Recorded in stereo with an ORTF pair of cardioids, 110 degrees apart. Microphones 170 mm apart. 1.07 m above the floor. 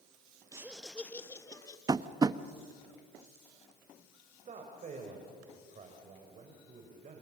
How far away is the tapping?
About 0.8 m.